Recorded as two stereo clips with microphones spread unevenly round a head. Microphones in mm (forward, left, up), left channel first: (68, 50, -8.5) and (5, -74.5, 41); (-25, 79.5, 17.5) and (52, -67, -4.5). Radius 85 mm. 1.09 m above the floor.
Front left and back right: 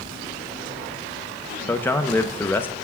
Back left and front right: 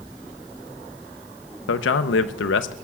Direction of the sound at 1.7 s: 130° left.